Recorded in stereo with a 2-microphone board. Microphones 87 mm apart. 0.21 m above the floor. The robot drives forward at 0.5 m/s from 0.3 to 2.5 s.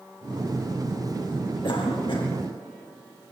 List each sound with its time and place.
1.6 s a cough: 65° left (ahead or behind), 5 m; by 2.3 s 60° left (ahead or behind), 5 m